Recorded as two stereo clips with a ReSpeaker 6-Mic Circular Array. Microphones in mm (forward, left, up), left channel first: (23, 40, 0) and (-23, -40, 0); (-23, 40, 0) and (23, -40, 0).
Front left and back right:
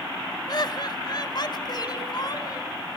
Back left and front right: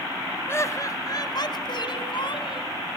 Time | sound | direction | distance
0.5 | laughter | 70° left | 1.4 m